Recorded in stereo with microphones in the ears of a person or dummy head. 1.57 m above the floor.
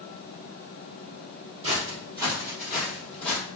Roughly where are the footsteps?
Right.